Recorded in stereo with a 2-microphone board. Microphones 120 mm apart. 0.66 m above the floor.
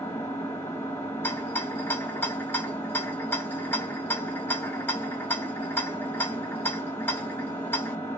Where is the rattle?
15° left (ahead or behind), 0.8 m.